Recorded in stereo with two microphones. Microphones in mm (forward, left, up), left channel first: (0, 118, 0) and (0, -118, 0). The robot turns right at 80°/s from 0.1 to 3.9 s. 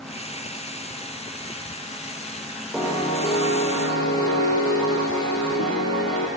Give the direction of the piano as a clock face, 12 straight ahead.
12 o'clock.